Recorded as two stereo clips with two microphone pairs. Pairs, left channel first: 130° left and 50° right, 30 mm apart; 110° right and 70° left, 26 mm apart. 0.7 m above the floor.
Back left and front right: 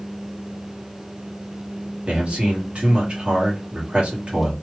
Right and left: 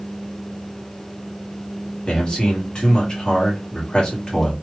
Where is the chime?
I don't hear a chime.